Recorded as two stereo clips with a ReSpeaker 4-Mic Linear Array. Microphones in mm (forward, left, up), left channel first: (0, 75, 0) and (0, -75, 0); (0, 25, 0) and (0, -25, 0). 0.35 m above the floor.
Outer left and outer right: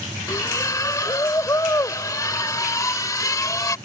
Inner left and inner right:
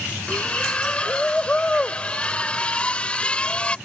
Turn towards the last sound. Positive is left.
turn(degrees=25)  # may be behind; listen again after turning